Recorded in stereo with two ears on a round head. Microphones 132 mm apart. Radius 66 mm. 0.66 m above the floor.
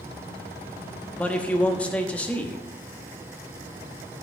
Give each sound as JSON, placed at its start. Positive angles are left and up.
{"t": 1.2, "sound": "a man speaking", "side_deg": 10, "distance_m": 1.0}